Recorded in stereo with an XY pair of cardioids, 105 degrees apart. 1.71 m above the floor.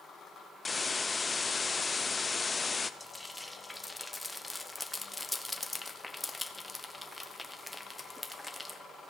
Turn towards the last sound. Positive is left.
turn(degrees=5)